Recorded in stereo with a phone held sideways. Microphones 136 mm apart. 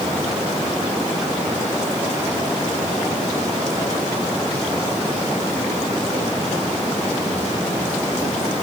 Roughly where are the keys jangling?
I don't hear keys jangling.